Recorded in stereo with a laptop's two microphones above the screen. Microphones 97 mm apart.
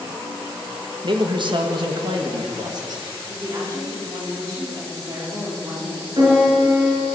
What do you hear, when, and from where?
1.0 s a man speaking: 55° right (ahead or behind), 1.3 m; by 3.0 s 45° right (ahead or behind), 2 m
3.3 s a woman speaking: 35° right (ahead or behind), 3 m
6.2 s a piano: 50° right (ahead or behind), 5 m